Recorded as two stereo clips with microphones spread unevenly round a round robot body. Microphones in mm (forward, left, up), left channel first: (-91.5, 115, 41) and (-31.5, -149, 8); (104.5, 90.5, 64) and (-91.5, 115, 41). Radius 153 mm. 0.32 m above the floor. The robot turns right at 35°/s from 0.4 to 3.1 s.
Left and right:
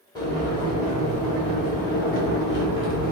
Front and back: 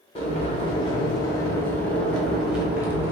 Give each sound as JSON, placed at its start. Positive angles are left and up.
{"t": 0.1, "sound": "boiling", "azimuth_deg": 25, "distance_m": 1.1}